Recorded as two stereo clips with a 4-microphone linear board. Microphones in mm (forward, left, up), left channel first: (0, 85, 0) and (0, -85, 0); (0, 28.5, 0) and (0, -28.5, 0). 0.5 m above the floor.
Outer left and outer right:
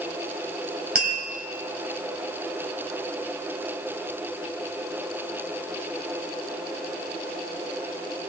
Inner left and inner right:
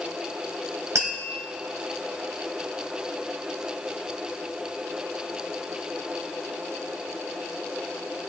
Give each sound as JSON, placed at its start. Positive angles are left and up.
{"t": 0.9, "sound": "tapping", "side_deg": -60, "distance_m": 2.5}